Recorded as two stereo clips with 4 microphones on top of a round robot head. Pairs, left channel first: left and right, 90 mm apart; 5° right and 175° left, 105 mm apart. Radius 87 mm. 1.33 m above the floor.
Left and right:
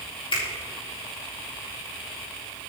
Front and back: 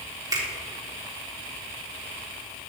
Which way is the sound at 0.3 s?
120° left.